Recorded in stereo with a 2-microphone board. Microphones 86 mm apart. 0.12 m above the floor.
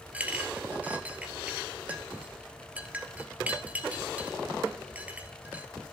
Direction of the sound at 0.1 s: 15° right (ahead or behind).